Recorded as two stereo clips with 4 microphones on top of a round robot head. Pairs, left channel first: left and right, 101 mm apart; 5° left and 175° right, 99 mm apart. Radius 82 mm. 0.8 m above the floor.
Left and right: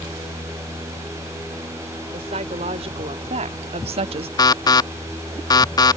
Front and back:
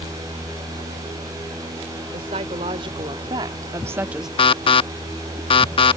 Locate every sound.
2.1 s a woman speaking: 130° right; by 4.3 s 85° right
4.4 s an alarm: 40° left